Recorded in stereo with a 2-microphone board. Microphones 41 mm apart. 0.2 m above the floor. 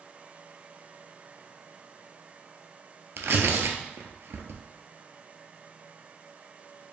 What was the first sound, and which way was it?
Tearing paper, 70° right (ahead or behind).